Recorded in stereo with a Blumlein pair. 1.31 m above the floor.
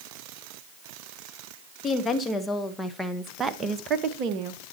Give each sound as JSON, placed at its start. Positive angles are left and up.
{"t": 1.8, "sound": "a woman speaking", "azimuth_deg": 20, "distance_m": 1.8}